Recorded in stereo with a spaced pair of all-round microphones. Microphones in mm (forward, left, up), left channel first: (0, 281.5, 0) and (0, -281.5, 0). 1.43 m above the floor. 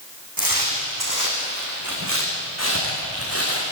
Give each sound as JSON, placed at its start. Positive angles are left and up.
{"t": 0.4, "sound": "footsteps", "side_deg": -40, "distance_m": 6.0}